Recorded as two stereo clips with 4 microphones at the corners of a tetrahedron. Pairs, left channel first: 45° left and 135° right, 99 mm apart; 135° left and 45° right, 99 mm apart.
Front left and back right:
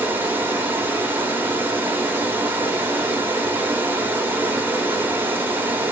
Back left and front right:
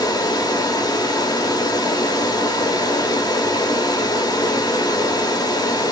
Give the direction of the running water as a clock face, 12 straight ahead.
7 o'clock.